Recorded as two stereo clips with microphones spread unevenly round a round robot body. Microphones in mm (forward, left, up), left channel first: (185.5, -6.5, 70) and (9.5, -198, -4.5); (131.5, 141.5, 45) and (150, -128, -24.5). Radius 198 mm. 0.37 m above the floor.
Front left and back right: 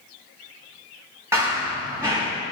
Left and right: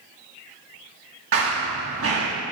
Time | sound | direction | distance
1.3 | running footsteps | 50° right | 2.5 m